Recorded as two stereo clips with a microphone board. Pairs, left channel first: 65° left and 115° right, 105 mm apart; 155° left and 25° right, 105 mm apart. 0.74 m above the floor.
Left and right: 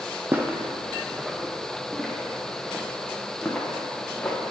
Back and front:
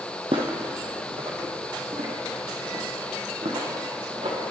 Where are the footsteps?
45° right, 1.6 m; by 4.4 s 5° right, 3.5 m.